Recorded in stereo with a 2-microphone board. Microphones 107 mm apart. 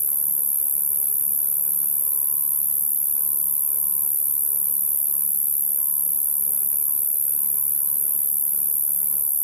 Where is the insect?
70° left (ahead or behind).